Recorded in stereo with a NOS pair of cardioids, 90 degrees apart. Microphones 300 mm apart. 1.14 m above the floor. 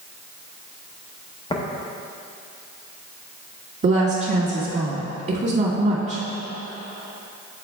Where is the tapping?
15° left, 1.0 m.